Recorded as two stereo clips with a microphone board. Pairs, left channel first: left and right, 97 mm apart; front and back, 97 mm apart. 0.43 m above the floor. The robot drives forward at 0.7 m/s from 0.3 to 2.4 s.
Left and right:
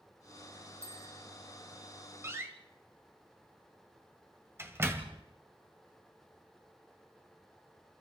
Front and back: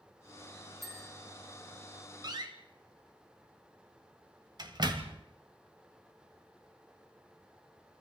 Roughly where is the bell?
Left.